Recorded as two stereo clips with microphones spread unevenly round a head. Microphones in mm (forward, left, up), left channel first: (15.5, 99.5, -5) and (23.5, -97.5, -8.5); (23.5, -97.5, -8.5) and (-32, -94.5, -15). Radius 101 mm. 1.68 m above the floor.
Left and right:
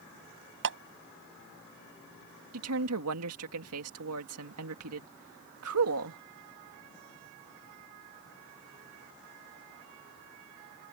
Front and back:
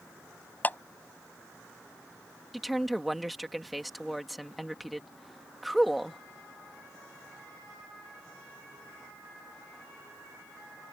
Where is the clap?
60° right.